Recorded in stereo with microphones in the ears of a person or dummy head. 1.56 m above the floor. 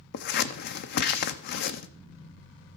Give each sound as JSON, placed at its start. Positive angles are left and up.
{"t": 0.1, "sound": "scissors", "side_deg": 55, "distance_m": 0.5}